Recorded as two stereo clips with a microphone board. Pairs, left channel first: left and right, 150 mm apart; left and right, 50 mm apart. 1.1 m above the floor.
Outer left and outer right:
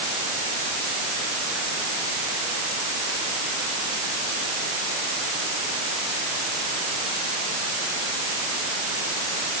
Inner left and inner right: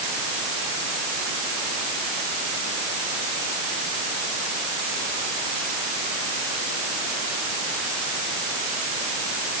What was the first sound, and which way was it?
Only background noise.